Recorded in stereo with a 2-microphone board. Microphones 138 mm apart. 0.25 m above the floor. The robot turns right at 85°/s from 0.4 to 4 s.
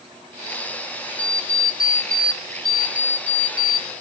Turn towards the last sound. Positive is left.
turn(degrees=-25)